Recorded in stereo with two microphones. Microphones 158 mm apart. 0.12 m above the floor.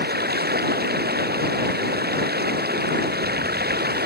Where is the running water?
70° right (ahead or behind).